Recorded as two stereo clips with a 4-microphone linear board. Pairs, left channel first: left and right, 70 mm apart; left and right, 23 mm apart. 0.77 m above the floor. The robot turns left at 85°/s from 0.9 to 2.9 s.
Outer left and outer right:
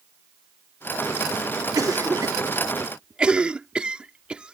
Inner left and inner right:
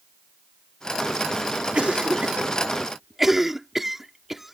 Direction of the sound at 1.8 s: 55° right (ahead or behind).